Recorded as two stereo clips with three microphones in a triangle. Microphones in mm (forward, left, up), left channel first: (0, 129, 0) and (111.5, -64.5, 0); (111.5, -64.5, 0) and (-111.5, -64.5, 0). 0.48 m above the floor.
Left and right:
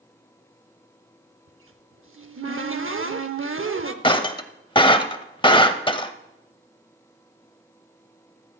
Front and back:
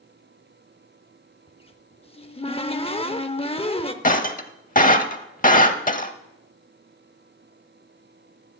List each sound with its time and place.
1.5 s a cupboard door: 65° right, 0.7 m
4.0 s breaking glass: 50° left, 0.6 m